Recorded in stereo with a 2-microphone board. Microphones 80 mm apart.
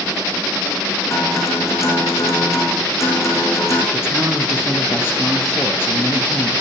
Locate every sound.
1.1 s a guitar: 40° left (ahead or behind), 6.5 m
3.9 s a man speaking: 30° left (ahead or behind), 5.5 m